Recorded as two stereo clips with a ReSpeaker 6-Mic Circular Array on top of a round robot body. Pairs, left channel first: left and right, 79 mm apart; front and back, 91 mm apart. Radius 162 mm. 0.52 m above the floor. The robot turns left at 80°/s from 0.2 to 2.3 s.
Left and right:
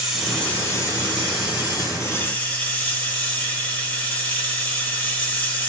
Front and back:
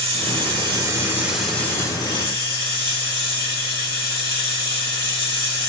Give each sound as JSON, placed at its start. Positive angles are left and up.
{"t": 0.0, "sound": "running water", "azimuth_deg": -175, "distance_m": 3.5}